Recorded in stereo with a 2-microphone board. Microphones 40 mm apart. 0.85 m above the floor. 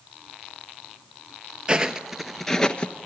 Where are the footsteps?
20° right (ahead or behind), 1.1 m; by 3.1 s 35° left (ahead or behind), 1.0 m.